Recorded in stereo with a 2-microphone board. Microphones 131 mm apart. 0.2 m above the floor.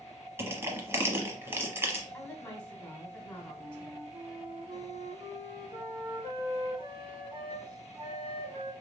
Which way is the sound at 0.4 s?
20° right (ahead or behind).